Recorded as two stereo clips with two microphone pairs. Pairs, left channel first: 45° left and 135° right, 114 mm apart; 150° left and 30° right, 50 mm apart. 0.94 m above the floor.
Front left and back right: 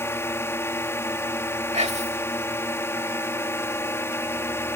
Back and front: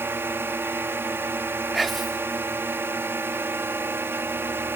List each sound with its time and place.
0.0 s a drone: 15° right
1.7 s whispering: 120° right